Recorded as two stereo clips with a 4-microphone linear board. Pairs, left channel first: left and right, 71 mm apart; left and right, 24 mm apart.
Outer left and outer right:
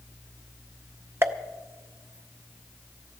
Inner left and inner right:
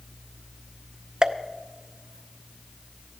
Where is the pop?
35° right (ahead or behind), 0.6 m.